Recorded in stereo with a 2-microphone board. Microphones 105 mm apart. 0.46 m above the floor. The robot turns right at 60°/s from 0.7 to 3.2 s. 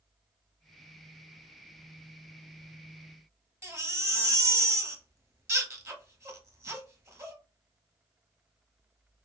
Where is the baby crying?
25° right (ahead or behind), 0.8 m.